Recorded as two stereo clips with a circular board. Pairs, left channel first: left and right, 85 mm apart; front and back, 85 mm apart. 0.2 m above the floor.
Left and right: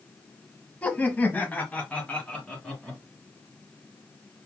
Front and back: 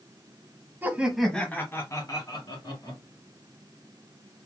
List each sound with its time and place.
0.8 s laughter: 145° left, 1.1 m; by 3.0 s 15° left, 2 m